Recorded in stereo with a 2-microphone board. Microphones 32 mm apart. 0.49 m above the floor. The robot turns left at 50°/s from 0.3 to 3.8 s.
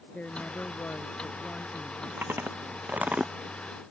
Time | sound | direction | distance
0.1 | a woman speaking | 125° left | ?
2.2 | chewing | 90° right | ?